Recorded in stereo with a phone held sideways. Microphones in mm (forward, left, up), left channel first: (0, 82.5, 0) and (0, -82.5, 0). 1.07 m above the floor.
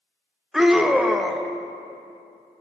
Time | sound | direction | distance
0.5 | a scream | centre (ahead or behind) | 0.6 m